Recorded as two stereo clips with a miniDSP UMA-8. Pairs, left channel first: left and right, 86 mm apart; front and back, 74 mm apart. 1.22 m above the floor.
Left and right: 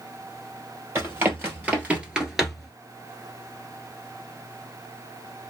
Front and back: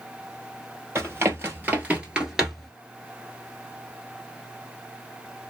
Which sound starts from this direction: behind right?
Running footsteps, at 0.9 s.